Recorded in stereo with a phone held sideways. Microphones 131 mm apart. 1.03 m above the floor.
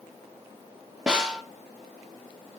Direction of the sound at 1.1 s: 5° right (ahead or behind).